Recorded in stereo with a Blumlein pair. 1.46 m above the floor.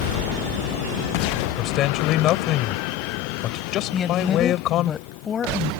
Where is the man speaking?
35° left.